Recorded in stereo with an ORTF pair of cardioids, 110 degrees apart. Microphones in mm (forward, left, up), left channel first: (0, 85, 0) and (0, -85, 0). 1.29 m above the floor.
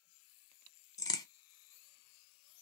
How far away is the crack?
About 0.7 m.